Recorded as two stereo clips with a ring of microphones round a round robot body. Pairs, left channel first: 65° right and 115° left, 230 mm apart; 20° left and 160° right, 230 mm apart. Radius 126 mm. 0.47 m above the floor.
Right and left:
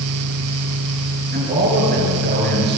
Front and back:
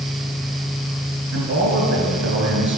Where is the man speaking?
165° left, 9 m; by 2.8 s 160° left, 10 m.